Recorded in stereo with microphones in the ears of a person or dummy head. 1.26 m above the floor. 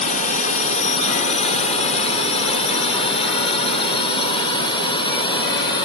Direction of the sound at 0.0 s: 40° left (ahead or behind).